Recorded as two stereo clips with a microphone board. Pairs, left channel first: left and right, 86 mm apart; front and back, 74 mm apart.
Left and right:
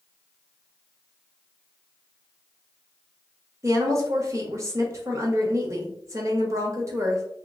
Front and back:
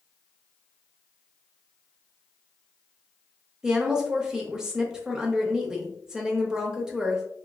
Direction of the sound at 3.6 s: 105° right.